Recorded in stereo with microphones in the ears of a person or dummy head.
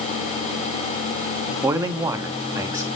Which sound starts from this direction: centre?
A man speaking, at 1.6 s.